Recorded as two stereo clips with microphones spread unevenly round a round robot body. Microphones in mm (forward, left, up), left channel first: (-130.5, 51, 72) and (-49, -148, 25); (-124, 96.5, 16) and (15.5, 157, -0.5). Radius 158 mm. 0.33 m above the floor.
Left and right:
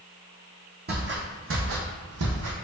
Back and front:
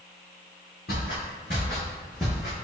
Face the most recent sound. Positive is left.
turn(degrees=-55)